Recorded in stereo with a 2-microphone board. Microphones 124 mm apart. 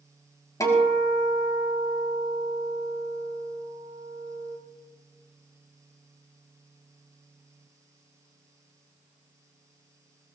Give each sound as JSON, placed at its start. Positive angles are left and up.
{"t": 0.6, "sound": "a guitar", "side_deg": 25, "distance_m": 4.5}